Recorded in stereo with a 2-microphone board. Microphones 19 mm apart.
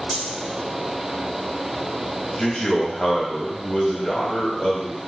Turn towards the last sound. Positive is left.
turn(degrees=50)  # may be behind; listen again after turning